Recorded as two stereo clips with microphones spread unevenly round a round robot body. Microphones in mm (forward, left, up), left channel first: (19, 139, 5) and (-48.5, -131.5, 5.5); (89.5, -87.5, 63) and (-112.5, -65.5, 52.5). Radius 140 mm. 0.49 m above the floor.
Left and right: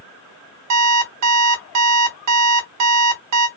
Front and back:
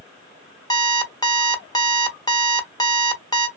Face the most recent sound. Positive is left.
turn(degrees=-80)